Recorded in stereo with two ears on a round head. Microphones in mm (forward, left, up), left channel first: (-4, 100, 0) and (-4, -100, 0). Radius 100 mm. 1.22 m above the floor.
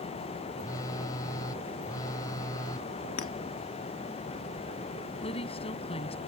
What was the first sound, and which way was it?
A phone buzzing, 15° left (ahead or behind).